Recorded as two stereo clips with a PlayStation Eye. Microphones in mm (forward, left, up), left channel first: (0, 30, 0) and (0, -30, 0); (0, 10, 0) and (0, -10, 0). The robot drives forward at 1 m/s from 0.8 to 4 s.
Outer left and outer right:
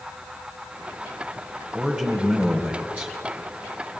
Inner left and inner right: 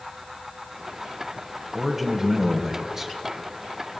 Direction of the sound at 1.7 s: 15° right (ahead or behind).